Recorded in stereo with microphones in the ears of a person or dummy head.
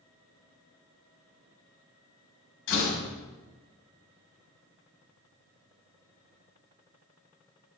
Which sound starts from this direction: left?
A door slam, at 2.7 s.